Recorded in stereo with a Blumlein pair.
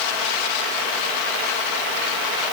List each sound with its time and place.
Only background noise.